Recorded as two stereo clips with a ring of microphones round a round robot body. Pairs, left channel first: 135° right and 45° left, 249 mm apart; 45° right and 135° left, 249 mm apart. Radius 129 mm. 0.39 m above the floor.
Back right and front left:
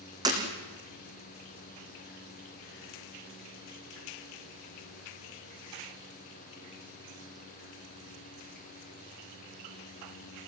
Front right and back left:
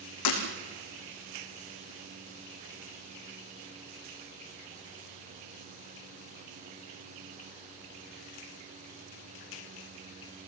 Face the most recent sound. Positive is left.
turn(degrees=-30)